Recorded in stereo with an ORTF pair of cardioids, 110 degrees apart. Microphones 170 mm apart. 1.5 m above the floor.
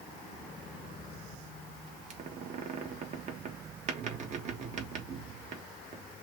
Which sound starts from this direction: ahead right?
A squeak, at 2.1 s.